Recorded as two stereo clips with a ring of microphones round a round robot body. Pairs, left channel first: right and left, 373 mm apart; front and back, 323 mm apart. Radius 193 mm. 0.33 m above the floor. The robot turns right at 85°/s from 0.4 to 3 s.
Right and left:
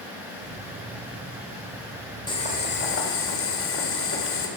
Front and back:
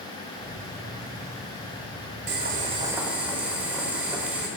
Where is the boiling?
160° right, 1.5 m; by 4.5 s 100° right, 1.5 m.